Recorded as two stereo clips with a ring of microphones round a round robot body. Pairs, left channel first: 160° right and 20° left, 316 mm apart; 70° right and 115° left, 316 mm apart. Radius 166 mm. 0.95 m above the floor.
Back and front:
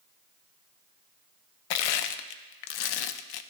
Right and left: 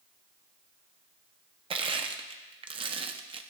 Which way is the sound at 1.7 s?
175° right.